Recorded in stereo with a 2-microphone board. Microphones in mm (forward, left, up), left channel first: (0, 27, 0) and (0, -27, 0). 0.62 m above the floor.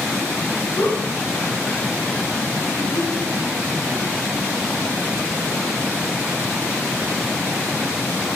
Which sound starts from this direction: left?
A giggle, at 0.8 s.